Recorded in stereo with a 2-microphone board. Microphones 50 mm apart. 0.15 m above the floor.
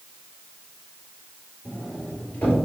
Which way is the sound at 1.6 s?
35° left (ahead or behind).